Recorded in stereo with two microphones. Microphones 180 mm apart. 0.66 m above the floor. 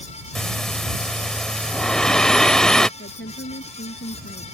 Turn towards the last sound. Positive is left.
turn(degrees=85)